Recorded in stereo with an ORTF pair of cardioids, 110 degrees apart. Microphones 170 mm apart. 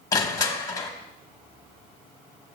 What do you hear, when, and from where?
0.1 s crushing: 20° left, 1.1 m